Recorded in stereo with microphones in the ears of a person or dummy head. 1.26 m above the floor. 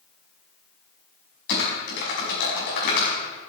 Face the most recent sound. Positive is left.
turn(degrees=60)  # may be behind; listen again after turning